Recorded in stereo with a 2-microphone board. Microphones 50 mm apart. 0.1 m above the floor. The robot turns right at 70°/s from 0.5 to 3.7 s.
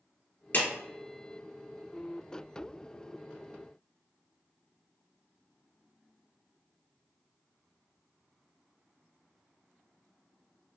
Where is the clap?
45° left (ahead or behind), 1.7 m.